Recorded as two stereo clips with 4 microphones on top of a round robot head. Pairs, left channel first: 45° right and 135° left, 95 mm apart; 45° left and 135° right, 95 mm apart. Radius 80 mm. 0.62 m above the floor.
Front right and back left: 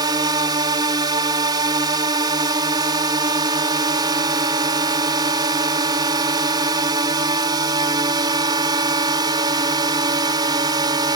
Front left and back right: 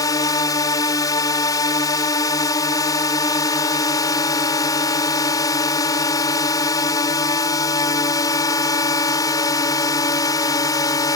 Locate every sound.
0.0 s a drone: 95° left